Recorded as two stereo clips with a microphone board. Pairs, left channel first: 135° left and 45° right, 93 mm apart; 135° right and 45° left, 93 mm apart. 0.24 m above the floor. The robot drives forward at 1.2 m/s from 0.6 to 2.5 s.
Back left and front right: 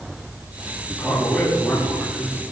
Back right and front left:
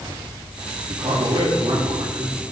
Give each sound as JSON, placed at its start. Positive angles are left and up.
{"t": 0.9, "sound": "a man speaking", "azimuth_deg": 40, "distance_m": 5.0}